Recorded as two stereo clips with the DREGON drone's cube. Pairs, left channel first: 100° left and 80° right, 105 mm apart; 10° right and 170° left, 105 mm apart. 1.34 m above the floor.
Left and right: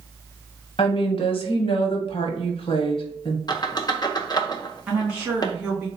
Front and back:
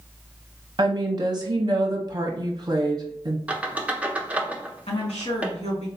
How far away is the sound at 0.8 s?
About 0.9 m.